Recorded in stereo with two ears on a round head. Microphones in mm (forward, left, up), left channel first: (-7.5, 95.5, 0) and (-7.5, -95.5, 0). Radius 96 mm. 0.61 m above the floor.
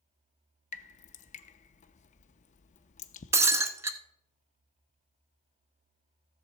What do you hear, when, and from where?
0.7 s dripping: 35° left (ahead or behind), 0.6 m
3.3 s breaking glass: 15° right (ahead or behind), 0.8 m